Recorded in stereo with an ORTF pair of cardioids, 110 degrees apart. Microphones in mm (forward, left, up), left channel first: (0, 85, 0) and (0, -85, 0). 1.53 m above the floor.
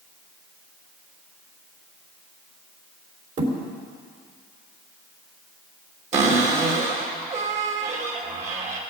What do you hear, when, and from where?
3.4 s a thud: 50° right, 3.5 m
6.1 s a cupboard door: 45° right, 3 m